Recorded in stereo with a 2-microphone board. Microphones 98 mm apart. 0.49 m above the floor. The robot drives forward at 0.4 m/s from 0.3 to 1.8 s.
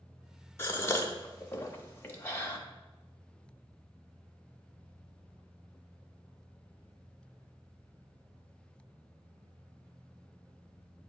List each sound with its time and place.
0.6 s a gasp: 25° left (ahead or behind), 0.8 m